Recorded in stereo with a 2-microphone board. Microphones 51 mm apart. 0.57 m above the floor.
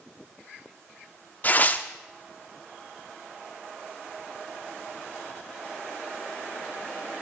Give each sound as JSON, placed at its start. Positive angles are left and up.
{"t": 1.4, "sound": "tearing paper", "side_deg": 35, "distance_m": 0.8}